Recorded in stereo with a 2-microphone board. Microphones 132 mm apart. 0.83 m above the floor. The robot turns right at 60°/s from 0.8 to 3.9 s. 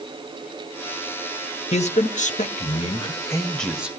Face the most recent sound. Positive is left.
turn(degrees=-170)